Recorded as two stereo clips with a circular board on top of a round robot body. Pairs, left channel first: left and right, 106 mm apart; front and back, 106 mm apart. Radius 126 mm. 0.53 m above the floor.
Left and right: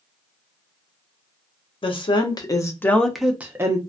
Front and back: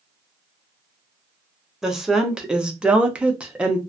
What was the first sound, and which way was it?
A woman speaking, 95° left.